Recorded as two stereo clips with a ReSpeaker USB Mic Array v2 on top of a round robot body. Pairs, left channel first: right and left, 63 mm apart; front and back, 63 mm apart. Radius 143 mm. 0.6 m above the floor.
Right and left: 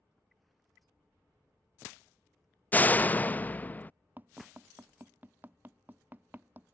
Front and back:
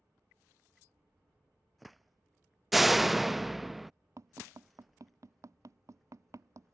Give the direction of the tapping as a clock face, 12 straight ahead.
7 o'clock.